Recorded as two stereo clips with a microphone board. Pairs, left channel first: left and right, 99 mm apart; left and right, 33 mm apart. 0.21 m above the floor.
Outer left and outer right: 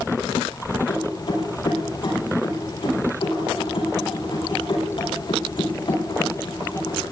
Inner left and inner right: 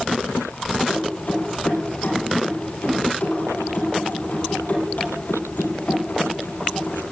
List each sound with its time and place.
0.9 s keys jangling: 60° left (ahead or behind), 5 m